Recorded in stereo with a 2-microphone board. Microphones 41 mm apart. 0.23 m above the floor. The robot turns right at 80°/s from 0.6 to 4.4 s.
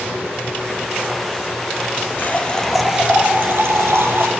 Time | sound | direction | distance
2.2 | a running tap | 130° left | 3.5 m